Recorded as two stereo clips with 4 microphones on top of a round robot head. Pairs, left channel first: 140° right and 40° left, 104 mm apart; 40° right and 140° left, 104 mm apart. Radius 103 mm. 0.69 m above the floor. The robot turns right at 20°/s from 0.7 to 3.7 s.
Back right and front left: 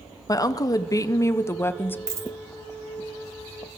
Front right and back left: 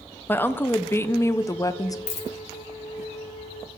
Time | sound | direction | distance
0.3 | a woman speaking | 100° right | 0.6 m
2.1 | a dropped coin | 25° right | 0.9 m